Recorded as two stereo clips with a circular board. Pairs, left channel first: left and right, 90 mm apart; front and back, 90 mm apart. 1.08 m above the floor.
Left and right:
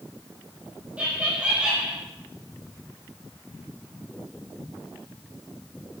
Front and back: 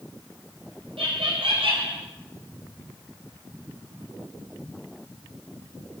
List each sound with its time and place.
1.0 s laughter: 165° right, 4.5 m; by 2.0 s 170° right, 4 m